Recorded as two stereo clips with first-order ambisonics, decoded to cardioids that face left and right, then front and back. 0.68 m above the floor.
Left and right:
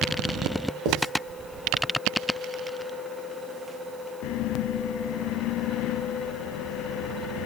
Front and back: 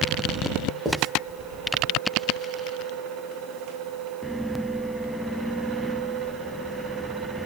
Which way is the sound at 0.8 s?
100° right.